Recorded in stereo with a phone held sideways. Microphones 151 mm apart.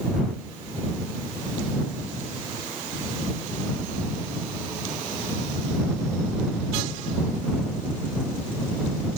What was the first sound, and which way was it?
Only background noise.